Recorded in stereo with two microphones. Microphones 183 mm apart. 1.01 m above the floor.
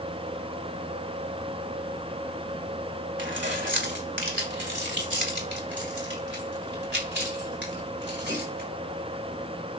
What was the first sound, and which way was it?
Keys jangling, 85° right.